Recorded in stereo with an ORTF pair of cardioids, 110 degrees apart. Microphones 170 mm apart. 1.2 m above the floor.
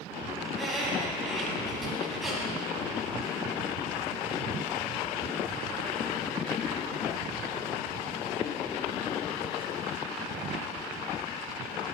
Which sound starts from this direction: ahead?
A squeak, at 0.5 s.